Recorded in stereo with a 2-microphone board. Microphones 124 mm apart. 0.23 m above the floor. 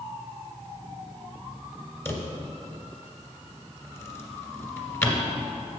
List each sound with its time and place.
2.0 s a drawer: 20° left (ahead or behind), 1.5 m